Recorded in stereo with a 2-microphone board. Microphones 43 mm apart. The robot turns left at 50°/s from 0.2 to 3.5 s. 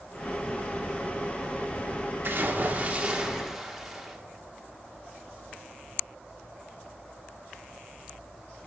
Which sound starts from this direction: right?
A splash, at 2.2 s.